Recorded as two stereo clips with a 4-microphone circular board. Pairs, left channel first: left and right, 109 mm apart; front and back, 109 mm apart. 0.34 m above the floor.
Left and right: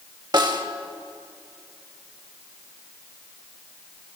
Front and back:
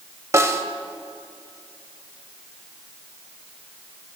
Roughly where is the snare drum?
Behind right.